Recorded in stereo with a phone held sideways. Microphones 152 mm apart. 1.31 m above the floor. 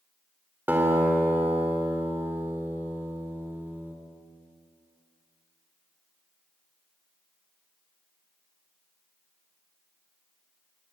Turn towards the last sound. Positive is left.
turn(degrees=-15)  # may be behind; listen again after turning